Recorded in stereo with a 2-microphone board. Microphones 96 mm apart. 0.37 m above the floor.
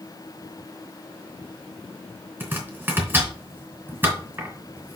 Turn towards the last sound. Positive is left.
turn(degrees=-20)  # may be behind; listen again after turning